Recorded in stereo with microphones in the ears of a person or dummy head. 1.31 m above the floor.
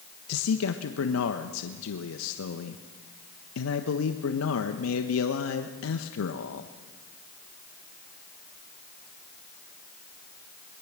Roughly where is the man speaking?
Left.